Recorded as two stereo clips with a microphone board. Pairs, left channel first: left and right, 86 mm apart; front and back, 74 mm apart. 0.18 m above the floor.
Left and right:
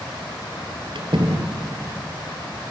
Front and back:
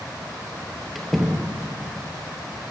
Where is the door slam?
90° right, 3.5 m.